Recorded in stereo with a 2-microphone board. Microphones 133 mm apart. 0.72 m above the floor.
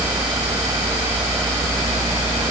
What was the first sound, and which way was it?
Only background noise.